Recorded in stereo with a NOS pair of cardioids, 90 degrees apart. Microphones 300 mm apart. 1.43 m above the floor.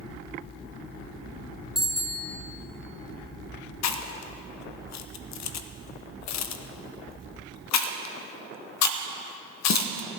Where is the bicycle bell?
Straight ahead, 2 m.